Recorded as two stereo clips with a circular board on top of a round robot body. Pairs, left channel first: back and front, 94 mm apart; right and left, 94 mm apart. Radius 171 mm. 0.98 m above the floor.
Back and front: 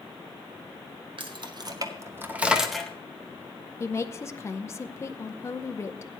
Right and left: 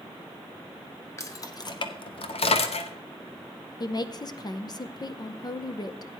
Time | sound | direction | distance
1.2 | keys jangling | 30° right | 1.4 m
3.8 | a woman speaking | 125° right | 0.9 m